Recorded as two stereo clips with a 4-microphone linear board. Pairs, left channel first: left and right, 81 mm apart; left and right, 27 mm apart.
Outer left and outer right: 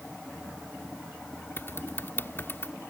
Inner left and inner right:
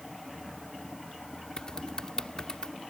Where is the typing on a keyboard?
30° left (ahead or behind).